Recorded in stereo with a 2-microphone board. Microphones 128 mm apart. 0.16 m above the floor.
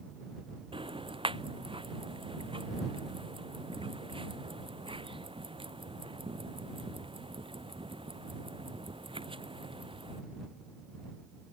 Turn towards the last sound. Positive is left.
turn(degrees=-45)  # may be behind; listen again after turning